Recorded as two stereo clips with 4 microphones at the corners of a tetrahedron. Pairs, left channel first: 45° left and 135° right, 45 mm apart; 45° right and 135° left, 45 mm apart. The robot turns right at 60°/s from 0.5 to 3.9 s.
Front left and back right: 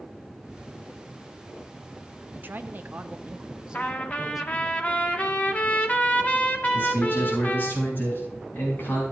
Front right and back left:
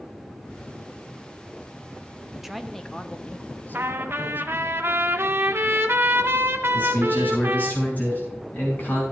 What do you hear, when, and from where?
2.3 s a man speaking: 150° right, 0.8 m; by 4.7 s 55° right, 0.8 m
3.7 s a trumpet: 95° left, 1.4 m; by 7.7 s 105° left, 1.4 m
6.7 s a man speaking: 5° left, 6.5 m